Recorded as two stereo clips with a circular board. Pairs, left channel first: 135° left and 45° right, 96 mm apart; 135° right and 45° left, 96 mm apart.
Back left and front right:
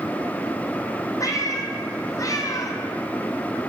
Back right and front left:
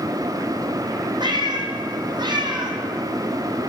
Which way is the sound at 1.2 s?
80° left.